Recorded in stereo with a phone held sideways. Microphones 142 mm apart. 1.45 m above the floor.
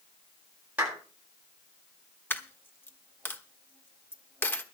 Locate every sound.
0.8 s a clap: 10° right (ahead or behind), 8.5 m
2.3 s a dropped coin: 15° left (ahead or behind), 1.2 m